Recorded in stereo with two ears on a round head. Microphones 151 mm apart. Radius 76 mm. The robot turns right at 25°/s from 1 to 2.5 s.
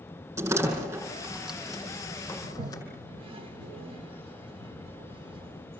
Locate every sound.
0.4 s a door slam: 20° right (ahead or behind), 7.5 m; by 2.8 s 20° left (ahead or behind), 7.5 m
2.4 s a toilet flushing: 35° right (ahead or behind), 1.6 m; by 5.8 s 30° right (ahead or behind), 1.6 m